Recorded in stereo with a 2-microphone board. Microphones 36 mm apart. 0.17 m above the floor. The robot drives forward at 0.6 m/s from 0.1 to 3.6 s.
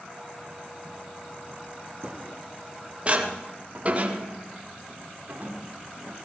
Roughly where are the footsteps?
Right.